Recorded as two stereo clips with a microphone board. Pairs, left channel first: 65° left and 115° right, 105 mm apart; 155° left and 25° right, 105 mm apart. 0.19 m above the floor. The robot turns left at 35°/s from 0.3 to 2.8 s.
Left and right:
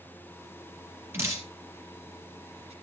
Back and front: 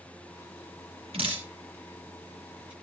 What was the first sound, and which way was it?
Dripping, 45° right.